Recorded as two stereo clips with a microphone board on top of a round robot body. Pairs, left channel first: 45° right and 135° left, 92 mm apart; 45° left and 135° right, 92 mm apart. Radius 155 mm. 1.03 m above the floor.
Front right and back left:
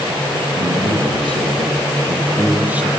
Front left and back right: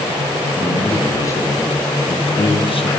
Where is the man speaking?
115° left, 2.5 m; by 2.9 s 55° left, 1.2 m.